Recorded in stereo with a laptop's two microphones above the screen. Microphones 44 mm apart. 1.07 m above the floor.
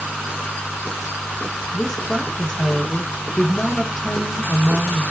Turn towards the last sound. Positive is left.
turn(degrees=25)  # may be behind; listen again after turning